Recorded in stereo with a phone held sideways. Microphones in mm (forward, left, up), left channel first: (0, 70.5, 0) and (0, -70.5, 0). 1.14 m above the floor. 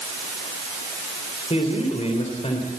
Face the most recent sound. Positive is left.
turn(degrees=50)  # may be behind; listen again after turning